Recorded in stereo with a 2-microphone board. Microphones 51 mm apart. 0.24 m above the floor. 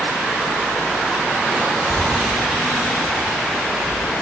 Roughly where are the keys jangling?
Right.